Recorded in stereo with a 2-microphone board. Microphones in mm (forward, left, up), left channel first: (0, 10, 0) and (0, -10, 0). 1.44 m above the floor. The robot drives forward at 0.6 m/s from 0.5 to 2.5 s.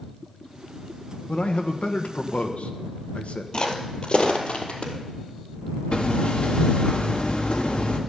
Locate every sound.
1.3 s a man speaking: 60° left (ahead or behind), 1.5 m; by 3.4 s 85° left, 1.3 m
3.5 s footsteps: 35° left (ahead or behind), 2 m; by 4.9 s 60° left (ahead or behind), 2.5 m
5.9 s hammering: 55° left (ahead or behind), 1.6 m